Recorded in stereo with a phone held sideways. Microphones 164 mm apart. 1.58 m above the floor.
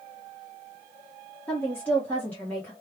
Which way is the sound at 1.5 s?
10° left (ahead or behind).